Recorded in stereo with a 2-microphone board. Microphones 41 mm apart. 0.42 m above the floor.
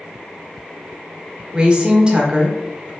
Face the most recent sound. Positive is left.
turn(degrees=-20)  # may be behind; listen again after turning